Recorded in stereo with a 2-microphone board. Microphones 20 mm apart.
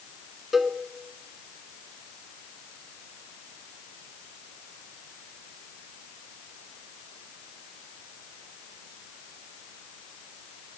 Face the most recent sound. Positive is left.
turn(degrees=-10)  # may be behind; listen again after turning